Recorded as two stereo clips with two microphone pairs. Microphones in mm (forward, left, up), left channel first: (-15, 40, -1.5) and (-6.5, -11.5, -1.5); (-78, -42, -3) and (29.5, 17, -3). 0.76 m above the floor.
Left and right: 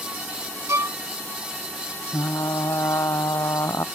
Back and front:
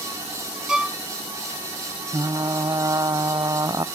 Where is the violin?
55° right.